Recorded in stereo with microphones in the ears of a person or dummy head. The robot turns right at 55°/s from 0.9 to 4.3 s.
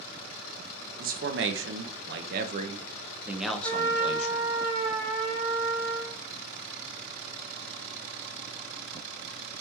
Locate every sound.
1.0 s a man speaking: 140° right, 0.6 m; by 4.5 s 45° left, 0.6 m
3.6 s a trumpet: 85° right, 2 m; by 6.2 s 45° right, 2 m